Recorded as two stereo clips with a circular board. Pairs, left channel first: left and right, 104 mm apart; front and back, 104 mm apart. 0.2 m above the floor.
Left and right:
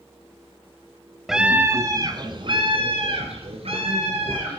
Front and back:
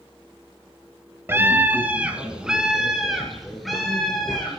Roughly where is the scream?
Behind.